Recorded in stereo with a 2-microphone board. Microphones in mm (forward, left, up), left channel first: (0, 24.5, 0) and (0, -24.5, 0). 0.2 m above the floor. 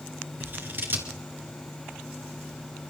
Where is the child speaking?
No child speaking in this recording.